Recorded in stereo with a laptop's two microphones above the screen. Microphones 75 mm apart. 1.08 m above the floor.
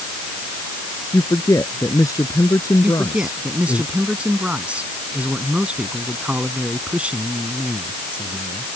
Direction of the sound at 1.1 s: 50° left (ahead or behind).